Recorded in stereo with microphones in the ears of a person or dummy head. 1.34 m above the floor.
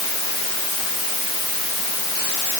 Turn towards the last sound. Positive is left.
No sound to turn to.